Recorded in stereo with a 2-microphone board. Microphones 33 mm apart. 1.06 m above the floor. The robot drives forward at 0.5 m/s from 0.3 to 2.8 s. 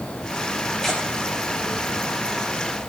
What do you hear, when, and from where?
0.8 s tearing paper: 15° left (ahead or behind), 3.5 m